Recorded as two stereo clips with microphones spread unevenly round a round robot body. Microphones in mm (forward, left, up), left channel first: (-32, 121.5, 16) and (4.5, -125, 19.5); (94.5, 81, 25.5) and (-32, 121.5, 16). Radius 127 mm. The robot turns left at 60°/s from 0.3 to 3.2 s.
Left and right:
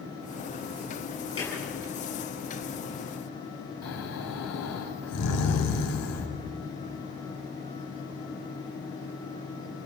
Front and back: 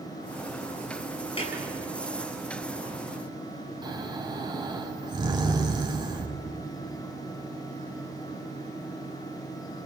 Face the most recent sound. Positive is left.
turn(degrees=110)